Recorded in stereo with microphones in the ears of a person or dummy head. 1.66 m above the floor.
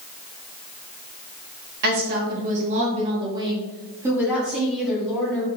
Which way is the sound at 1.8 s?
55° right (ahead or behind).